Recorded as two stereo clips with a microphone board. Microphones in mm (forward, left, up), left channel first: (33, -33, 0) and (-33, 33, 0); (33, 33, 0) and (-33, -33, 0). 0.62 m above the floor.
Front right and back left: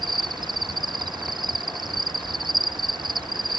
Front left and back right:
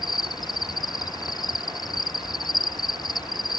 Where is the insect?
95° left.